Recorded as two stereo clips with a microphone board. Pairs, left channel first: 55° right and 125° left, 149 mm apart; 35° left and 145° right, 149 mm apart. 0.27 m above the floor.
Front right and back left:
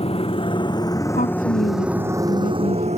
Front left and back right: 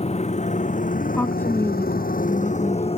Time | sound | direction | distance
0.0 | a motorcycle | 10° right | ?
1.1 | a woman speaking | 40° right | ?